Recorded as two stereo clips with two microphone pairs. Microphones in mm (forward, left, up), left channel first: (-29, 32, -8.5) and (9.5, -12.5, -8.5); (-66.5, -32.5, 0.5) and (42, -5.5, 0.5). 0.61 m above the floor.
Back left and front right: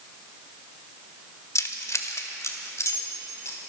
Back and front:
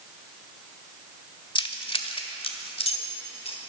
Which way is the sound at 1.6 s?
155° left.